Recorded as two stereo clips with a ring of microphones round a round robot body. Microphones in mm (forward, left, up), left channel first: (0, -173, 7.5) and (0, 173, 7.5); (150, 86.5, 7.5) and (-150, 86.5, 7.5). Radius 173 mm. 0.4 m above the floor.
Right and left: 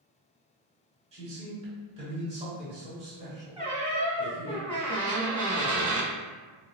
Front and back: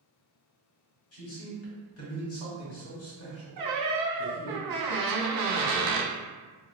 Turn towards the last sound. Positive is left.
turn(degrees=-175)